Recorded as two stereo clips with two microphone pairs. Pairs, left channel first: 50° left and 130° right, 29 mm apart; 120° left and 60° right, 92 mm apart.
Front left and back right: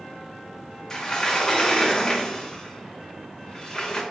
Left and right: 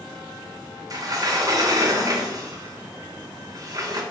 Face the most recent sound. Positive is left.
turn(degrees=-15)